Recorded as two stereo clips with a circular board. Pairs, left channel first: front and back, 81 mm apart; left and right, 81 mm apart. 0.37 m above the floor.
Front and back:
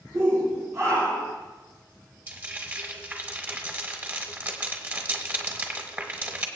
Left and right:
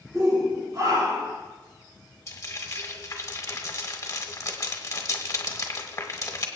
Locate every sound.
0.1 s a shout: 145° right, 6 m; by 1.4 s 140° right, 4.5 m
2.3 s frying: 125° left, 1.6 m